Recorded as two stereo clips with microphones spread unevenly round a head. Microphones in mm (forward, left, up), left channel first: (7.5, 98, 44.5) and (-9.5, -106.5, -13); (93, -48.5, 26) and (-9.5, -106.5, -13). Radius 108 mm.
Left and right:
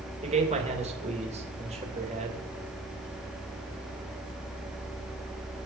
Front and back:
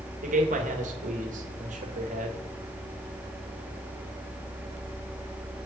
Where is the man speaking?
155° right, 2.5 m.